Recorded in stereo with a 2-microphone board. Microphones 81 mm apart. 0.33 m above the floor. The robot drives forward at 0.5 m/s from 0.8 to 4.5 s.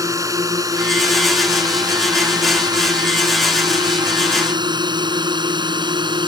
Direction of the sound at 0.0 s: 40° right (ahead or behind).